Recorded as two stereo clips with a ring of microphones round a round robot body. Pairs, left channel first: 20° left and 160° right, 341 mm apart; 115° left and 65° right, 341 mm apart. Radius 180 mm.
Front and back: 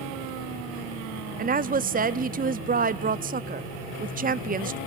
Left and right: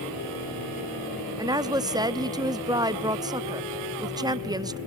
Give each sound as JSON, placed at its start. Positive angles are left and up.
{"t": 1.4, "sound": "a woman speaking", "azimuth_deg": -130, "distance_m": 0.7}